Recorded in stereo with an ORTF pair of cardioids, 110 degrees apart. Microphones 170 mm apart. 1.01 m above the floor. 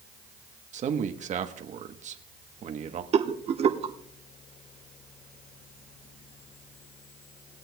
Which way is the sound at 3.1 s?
40° right.